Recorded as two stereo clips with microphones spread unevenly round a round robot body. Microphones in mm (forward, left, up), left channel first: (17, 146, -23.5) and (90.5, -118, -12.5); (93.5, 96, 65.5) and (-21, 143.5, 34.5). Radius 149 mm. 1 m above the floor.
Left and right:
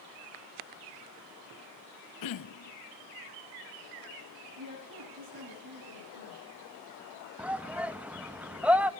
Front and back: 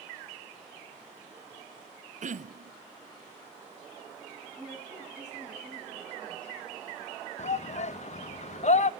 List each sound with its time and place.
2.2 s throat clearing: 125° left, 0.7 m
4.6 s a woman speaking: 105° right, 8.5 m
7.4 s a shout: 10° left, 1.0 m